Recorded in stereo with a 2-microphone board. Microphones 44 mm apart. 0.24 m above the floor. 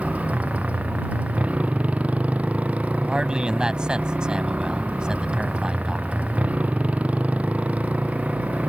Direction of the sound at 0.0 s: 35° right (ahead or behind).